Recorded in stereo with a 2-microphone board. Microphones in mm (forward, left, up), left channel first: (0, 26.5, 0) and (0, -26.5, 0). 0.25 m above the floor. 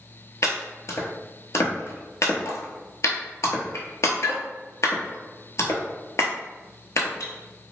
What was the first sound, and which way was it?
Chopping, 70° left (ahead or behind).